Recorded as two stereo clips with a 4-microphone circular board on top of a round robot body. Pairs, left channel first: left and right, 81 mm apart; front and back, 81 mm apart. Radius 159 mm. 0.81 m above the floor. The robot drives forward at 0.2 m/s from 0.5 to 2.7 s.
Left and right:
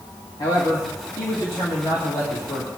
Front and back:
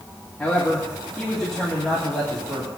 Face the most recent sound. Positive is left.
turn(degrees=85)